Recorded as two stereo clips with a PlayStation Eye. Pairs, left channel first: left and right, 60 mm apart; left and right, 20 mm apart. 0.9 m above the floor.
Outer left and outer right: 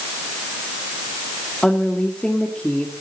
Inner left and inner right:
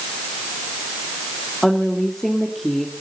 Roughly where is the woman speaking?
Centre.